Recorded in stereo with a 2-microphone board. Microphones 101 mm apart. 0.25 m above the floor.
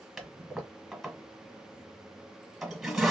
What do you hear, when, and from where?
0.2 s a toilet flushing: centre (ahead or behind), 1.4 m